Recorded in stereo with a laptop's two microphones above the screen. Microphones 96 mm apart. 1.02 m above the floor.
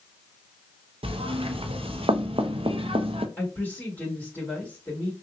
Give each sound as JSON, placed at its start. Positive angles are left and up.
{"t": 1.0, "sound": "knocking", "side_deg": -70, "distance_m": 0.5}
{"t": 3.4, "sound": "a woman speaking", "side_deg": 20, "distance_m": 1.9}